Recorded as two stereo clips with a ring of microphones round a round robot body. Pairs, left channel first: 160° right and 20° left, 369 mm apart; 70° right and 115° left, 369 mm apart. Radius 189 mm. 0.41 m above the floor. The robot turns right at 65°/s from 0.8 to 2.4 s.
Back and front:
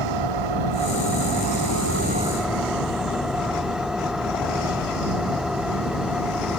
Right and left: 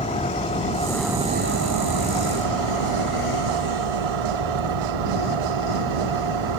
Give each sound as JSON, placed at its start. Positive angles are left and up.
{"t": 0.0, "sound": "an engine running", "azimuth_deg": 10}